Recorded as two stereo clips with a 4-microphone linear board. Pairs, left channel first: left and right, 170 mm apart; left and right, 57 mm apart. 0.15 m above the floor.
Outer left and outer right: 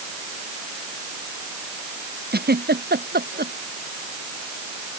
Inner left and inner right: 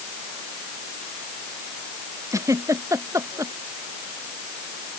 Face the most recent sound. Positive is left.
turn(degrees=-75)  # may be behind; listen again after turning